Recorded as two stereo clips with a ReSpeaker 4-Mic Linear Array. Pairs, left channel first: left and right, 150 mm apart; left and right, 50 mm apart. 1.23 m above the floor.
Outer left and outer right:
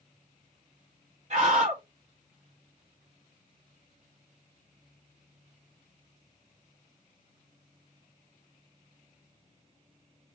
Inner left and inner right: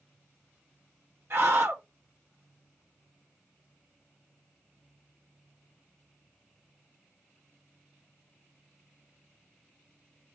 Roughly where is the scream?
Right.